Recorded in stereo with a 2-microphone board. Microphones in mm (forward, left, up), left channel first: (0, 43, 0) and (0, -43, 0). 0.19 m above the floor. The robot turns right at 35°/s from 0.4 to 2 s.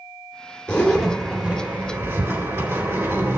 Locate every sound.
0.7 s a zipper: 15° left (ahead or behind), 2.5 m; by 3.4 s 30° right (ahead or behind), 2.5 m